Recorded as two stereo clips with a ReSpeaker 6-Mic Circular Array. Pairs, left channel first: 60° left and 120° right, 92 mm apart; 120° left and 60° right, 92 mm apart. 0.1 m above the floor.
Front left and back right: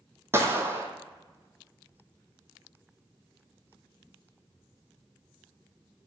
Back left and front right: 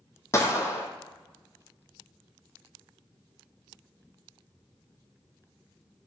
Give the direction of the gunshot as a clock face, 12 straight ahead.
6 o'clock.